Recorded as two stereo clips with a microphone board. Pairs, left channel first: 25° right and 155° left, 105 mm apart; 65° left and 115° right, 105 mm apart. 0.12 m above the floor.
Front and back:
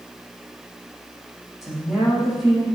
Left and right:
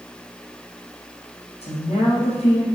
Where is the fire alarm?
No fire alarm in this recording.